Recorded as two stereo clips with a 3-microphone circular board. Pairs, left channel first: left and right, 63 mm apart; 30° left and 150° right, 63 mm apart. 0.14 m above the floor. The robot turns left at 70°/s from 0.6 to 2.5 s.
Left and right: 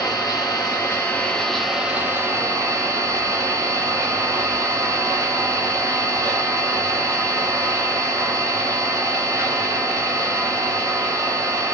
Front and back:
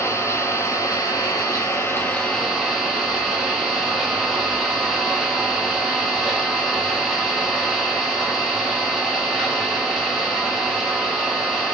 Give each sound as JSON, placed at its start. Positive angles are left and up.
{"t": 0.0, "sound": "an engine running", "azimuth_deg": 70, "distance_m": 1.0}